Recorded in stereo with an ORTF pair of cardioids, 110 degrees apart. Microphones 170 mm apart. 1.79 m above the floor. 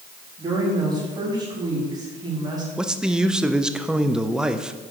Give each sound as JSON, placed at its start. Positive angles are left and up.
{"t": 0.4, "sound": "a woman speaking", "azimuth_deg": -25, "distance_m": 3.5}
{"t": 2.8, "sound": "a man speaking", "azimuth_deg": -5, "distance_m": 0.7}